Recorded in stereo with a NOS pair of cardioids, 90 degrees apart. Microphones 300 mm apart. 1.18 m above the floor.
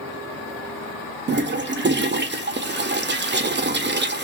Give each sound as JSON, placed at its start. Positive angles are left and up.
{"t": 1.3, "sound": "a toilet flushing", "azimuth_deg": -40, "distance_m": 0.8}